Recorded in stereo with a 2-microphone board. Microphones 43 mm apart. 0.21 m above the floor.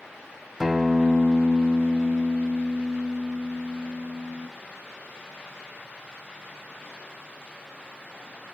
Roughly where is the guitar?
Centre.